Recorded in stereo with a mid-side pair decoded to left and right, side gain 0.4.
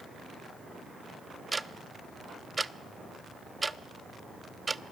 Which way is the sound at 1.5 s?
20° right.